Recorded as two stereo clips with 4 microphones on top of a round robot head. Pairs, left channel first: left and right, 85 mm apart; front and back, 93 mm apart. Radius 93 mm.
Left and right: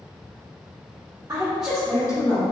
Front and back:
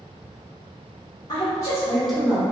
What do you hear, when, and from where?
1.3 s a woman speaking: 30° right, 1.2 m; by 2.4 s 105° left, 1.2 m